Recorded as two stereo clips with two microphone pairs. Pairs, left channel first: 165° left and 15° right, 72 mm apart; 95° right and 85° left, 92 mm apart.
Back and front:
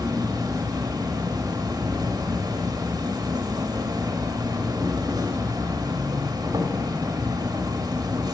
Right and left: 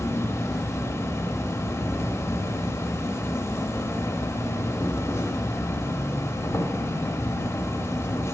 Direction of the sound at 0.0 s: 35° right.